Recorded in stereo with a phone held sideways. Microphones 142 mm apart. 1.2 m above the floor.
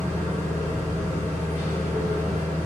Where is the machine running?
55° right (ahead or behind), 1.7 m.